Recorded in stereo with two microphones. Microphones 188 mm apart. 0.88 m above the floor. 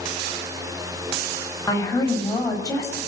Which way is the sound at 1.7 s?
20° left (ahead or behind).